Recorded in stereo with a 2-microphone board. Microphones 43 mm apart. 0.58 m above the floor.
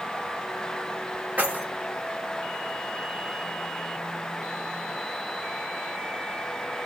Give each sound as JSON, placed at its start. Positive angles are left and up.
{"t": 1.4, "sound": "keys jangling", "side_deg": -35, "distance_m": 1.8}